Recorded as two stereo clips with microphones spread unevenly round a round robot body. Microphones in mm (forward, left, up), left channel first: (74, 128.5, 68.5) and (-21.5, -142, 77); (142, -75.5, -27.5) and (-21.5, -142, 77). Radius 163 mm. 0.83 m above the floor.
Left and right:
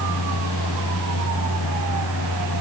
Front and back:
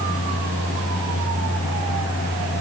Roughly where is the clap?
No clap in this recording.